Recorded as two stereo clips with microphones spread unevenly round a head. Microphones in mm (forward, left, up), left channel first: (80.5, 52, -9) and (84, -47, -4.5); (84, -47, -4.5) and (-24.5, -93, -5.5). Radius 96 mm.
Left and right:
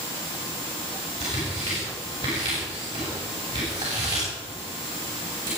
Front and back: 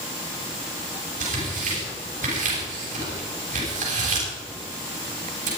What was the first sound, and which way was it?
Tearing paper, 160° right.